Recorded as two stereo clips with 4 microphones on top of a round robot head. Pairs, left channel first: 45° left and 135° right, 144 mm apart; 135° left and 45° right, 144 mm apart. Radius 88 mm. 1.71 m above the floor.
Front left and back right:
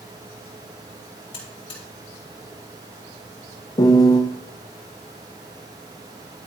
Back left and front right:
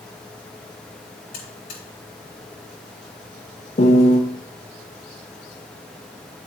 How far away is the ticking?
I don't hear ticking.